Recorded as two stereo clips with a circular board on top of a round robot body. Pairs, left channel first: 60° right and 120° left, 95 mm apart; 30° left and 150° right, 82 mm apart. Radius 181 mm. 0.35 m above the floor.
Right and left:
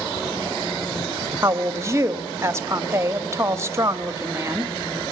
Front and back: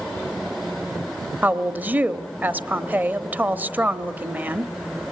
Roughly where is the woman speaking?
Behind left.